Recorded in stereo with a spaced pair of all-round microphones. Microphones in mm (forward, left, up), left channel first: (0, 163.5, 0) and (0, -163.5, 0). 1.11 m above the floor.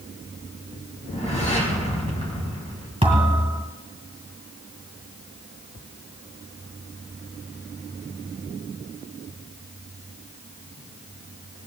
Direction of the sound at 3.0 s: 15° right (ahead or behind).